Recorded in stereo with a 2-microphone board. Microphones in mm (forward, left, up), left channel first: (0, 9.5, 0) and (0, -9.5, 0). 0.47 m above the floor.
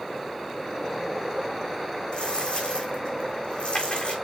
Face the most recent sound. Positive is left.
turn(degrees=65)  # may be behind; listen again after turning